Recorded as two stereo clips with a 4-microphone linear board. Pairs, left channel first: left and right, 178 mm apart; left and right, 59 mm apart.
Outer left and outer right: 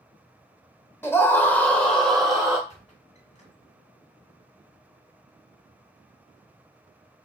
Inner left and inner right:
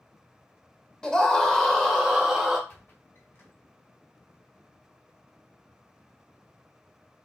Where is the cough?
I don't hear a cough.